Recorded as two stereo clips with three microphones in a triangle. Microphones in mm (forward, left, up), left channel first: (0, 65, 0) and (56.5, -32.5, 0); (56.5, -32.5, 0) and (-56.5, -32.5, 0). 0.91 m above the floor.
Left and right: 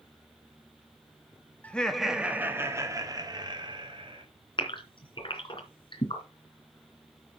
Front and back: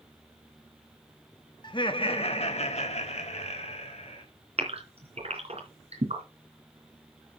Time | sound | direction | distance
1.6 | laughter | 45° left | 1.4 m
4.6 | a gasp | 160° left | 3 m